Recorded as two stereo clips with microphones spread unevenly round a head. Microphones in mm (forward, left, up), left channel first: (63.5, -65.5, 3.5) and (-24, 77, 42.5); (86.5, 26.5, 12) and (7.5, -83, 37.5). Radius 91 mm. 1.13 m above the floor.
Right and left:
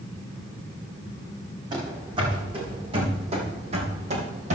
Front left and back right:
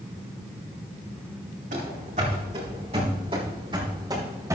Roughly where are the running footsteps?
Behind.